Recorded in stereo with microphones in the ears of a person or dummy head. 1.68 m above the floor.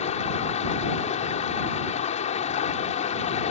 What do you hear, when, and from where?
0.0 s running water: 30° left (ahead or behind)